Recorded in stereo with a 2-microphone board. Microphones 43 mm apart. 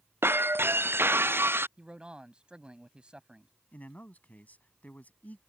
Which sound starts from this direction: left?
A man speaking, at 3.7 s.